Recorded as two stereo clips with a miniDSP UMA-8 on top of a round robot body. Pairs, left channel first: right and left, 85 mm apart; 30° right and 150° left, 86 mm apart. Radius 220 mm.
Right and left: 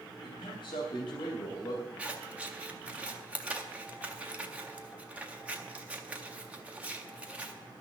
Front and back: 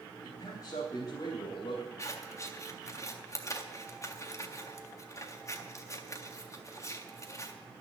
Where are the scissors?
20° left, 1.8 m.